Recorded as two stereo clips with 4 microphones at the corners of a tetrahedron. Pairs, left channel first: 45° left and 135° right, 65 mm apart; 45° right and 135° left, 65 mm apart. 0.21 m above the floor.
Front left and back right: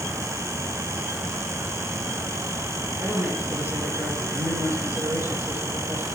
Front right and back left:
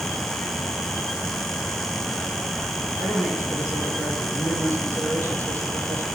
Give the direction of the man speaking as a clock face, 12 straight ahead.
6 o'clock.